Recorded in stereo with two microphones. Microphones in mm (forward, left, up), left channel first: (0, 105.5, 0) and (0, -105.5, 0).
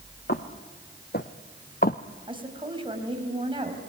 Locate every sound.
0.3 s footsteps: 50° left (ahead or behind), 2 m; by 2.0 s 40° left (ahead or behind), 0.8 m
2.3 s a woman speaking: 25° right (ahead or behind), 4.5 m